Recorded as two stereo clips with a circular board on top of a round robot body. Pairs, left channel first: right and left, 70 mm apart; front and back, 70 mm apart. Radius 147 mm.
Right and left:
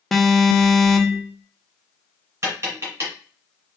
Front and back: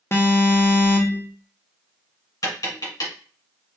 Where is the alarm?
5° right, 0.8 m.